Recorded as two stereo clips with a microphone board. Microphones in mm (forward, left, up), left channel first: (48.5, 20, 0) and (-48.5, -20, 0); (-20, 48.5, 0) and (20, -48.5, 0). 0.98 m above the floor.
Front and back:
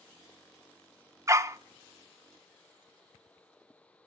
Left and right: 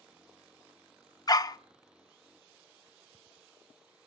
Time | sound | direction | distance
1.3 | a dog barking | 150° left | 0.6 m